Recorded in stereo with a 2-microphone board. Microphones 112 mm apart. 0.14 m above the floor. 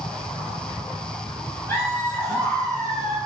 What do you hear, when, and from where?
1.7 s laughter: 20° left (ahead or behind), 3 m